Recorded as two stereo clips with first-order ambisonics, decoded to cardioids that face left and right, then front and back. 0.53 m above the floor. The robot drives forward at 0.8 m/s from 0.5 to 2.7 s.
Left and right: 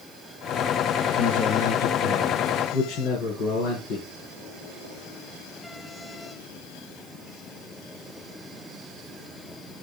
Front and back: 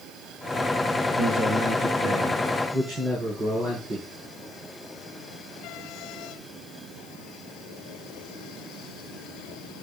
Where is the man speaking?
105° left, 7.5 m; by 4.0 s 115° left, 8 m.